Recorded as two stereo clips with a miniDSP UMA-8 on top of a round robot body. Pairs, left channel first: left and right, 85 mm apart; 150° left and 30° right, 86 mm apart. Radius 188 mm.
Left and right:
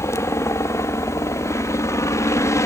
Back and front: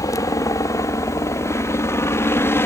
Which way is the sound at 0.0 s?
130° left.